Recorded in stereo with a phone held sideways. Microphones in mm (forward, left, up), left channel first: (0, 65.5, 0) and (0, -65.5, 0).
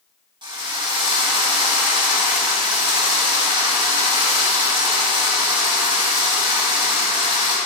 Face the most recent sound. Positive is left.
turn(degrees=-35)  # may be behind; listen again after turning